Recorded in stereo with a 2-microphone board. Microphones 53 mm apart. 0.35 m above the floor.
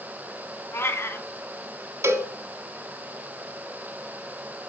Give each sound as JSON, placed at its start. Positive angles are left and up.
{"t": 0.7, "sound": "a cat meowing", "side_deg": 50, "distance_m": 1.6}
{"t": 2.0, "sound": "a cowbell", "side_deg": -60, "distance_m": 1.2}